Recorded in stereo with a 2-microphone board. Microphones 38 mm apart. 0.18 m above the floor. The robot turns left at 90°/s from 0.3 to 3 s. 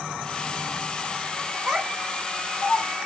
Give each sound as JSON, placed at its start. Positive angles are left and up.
{"t": 1.7, "sound": "a child speaking", "side_deg": -20, "distance_m": 1.2}